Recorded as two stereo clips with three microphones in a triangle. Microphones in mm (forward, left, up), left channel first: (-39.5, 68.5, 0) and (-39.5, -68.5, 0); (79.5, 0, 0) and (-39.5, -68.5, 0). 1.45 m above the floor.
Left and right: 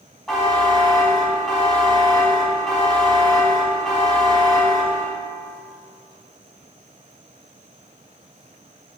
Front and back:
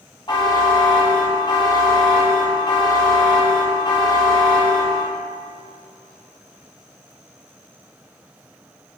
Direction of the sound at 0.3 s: Straight ahead.